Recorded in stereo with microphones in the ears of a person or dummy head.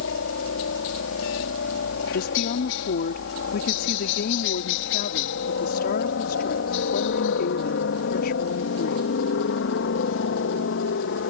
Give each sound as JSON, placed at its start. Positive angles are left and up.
{"t": 0.0, "sound": "a helicopter", "side_deg": 70}
{"t": 2.1, "sound": "a woman speaking", "side_deg": 50}